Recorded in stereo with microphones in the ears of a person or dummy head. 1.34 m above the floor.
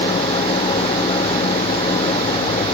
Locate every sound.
0.0 s an engine running: 30° left (ahead or behind)